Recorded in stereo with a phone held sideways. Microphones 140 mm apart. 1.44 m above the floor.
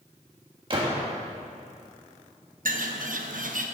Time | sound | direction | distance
0.7 | a gunshot | 35° right (ahead or behind) | 1.4 m
2.6 | a bird | 75° right (ahead or behind) | 0.7 m